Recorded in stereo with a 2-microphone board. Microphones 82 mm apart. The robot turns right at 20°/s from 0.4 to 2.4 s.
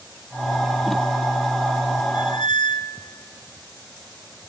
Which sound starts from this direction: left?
A squeak, at 2.1 s.